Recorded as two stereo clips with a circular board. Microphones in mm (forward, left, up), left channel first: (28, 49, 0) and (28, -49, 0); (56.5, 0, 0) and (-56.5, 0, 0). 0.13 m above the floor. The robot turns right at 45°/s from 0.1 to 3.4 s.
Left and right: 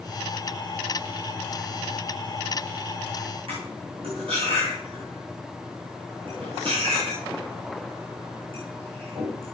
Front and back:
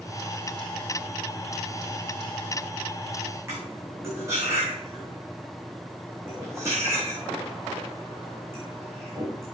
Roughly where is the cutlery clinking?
Behind right.